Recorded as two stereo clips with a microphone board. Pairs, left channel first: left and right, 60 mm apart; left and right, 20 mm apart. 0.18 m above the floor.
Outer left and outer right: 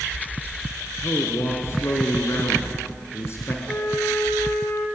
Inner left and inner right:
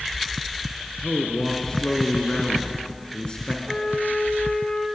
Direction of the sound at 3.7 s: 85° left.